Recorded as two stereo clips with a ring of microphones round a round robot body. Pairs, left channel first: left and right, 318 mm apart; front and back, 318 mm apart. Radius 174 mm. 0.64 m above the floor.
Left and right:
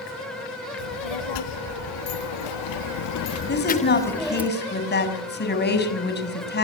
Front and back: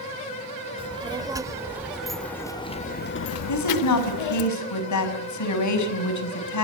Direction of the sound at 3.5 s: 30° left.